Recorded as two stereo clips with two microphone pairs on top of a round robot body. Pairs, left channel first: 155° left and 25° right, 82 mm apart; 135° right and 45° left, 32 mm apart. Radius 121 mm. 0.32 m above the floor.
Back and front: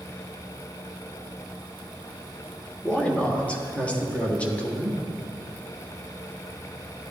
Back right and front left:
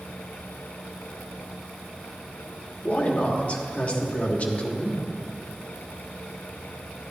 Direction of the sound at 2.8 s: 150° right.